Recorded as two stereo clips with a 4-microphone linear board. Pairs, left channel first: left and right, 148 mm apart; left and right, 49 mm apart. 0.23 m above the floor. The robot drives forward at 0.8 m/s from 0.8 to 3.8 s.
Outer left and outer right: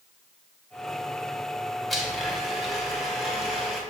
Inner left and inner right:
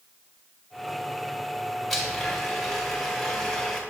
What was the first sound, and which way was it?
A blender, centre (ahead or behind).